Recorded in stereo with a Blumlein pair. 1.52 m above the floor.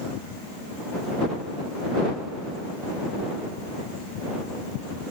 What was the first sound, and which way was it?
Only background noise.